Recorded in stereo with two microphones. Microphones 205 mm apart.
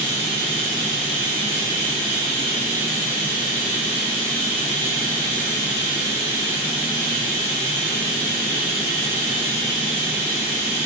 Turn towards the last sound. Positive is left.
turn(degrees=40)  # may be behind; listen again after turning